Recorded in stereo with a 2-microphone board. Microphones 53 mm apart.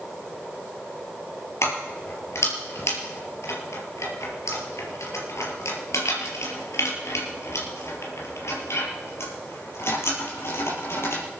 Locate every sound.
1.6 s keys jangling: 65° left (ahead or behind), 4.5 m; by 11.2 s 55° left (ahead or behind), 5.5 m